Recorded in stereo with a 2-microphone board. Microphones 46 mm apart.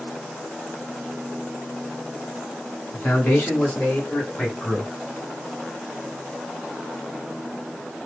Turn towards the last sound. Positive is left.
turn(degrees=20)  # may be behind; listen again after turning